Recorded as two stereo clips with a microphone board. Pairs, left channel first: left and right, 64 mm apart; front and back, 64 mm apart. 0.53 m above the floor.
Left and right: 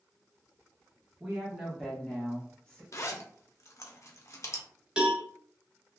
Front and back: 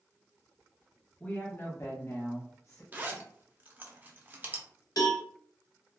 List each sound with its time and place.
1.2 s a woman speaking: 30° right, 0.8 m; by 2.8 s 25° left, 1.3 m
2.9 s a zipper: 120° left, 0.5 m
5.0 s a cowbell: 15° right, 0.7 m